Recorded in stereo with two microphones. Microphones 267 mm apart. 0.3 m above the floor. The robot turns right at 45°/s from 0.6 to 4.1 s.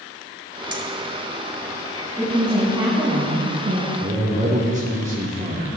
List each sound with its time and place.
0.7 s keys jangling: 60° right (ahead or behind), 1.3 m; by 0.8 s 65° right (ahead or behind), 1.3 m
2.2 s a woman speaking: 175° left, 3 m; by 3.9 s 110° right, 3 m
4.0 s a man speaking: 30° right (ahead or behind), 5 m